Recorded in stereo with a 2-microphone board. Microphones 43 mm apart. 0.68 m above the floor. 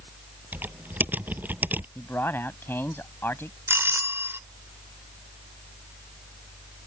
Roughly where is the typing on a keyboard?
Right.